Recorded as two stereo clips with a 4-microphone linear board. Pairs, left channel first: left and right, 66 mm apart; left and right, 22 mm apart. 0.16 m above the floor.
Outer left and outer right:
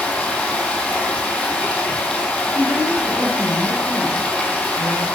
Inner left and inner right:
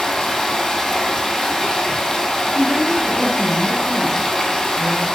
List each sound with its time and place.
0.0 s running water: 15° left (ahead or behind), 0.8 m
2.5 s a woman speaking: 45° right (ahead or behind), 1.8 m